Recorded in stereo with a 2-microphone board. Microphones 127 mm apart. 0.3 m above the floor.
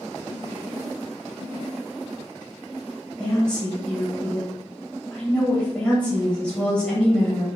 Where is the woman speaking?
10° left (ahead or behind), 1.7 m.